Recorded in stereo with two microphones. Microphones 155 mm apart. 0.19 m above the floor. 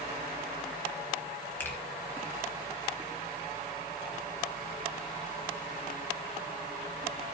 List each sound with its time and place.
1.6 s a finger snap: 10° left (ahead or behind), 2.5 m